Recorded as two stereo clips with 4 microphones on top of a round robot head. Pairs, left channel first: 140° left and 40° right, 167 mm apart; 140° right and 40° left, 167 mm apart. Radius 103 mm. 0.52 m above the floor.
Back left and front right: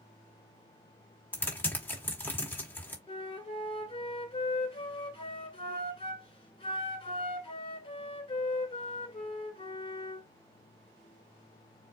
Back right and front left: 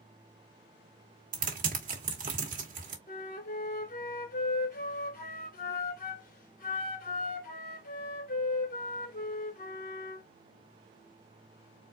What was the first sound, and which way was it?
Typing on a keyboard, 65° left.